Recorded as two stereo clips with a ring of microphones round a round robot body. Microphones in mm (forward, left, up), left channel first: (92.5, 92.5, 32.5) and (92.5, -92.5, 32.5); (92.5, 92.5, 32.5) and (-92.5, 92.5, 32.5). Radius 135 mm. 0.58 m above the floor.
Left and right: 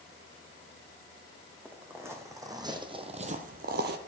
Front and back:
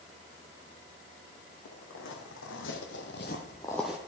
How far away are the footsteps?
About 2 m.